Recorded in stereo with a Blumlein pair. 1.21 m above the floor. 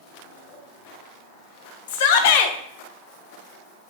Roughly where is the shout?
Ahead left.